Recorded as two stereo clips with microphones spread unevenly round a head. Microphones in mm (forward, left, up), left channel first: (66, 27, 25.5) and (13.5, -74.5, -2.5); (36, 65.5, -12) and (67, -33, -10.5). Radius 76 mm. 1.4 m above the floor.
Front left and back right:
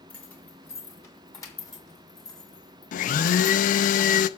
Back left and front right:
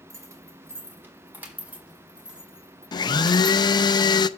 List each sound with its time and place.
0.1 s keys jangling: 15° right, 2.5 m; by 3.6 s 15° left, 4.5 m
2.9 s a blender: 60° left, 0.6 m